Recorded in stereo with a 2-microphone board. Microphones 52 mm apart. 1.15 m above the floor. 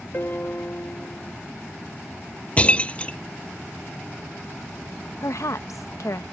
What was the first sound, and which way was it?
A piano, 45° left (ahead or behind).